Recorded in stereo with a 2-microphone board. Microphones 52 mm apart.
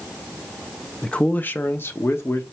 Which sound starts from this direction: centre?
A man speaking, at 1.0 s.